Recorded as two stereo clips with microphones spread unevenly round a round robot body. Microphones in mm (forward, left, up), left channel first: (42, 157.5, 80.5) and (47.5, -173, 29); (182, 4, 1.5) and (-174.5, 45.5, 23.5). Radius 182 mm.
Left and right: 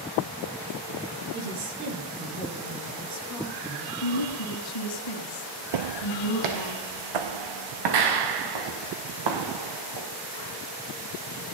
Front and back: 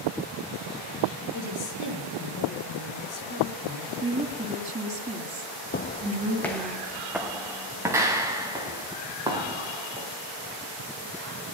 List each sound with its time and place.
1.3 s a woman speaking: 60° right, 6 m
4.0 s a woman speaking: 100° left, 3.5 m
5.7 s footsteps: 70° right, 0.6 m; by 10.1 s 110° right, 4 m